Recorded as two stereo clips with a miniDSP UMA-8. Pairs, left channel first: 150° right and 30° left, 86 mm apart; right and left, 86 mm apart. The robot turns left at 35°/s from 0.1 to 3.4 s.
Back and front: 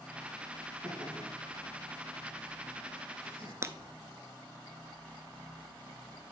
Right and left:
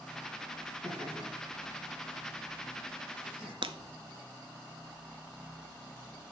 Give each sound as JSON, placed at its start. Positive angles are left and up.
{"t": 0.8, "sound": "laughter", "azimuth_deg": 100, "distance_m": 4.5}
{"t": 3.6, "sound": "breaking glass", "azimuth_deg": 85, "distance_m": 0.6}